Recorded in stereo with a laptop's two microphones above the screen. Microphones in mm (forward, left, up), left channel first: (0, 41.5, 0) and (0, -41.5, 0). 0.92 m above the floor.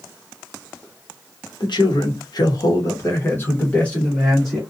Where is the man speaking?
65° left (ahead or behind), 1.0 m; by 4.6 s 5° left (ahead or behind), 1.5 m.